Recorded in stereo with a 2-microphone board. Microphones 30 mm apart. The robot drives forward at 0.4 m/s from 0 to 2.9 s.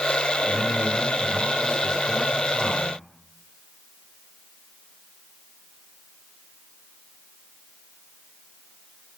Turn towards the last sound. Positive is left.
turn(degrees=20)  # may be behind; listen again after turning